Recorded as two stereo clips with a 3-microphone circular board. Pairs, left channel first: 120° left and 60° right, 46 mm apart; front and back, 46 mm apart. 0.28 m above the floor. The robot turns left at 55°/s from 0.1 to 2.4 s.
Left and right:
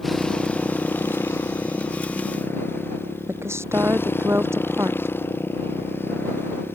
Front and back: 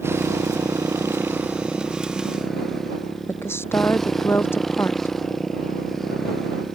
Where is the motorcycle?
150° right; by 6.8 s 85° left.